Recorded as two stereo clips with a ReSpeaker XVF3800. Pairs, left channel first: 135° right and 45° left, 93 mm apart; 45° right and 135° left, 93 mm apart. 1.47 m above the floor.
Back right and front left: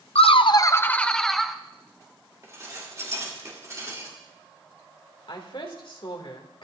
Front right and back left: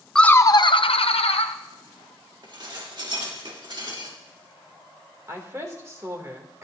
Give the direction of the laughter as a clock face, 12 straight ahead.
4 o'clock.